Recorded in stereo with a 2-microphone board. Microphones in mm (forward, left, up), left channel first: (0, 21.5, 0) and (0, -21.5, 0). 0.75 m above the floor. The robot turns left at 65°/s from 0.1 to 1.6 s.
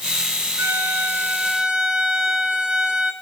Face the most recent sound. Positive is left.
turn(degrees=-160)